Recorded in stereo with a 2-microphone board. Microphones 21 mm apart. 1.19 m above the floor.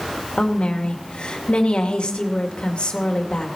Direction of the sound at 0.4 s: 70° left (ahead or behind).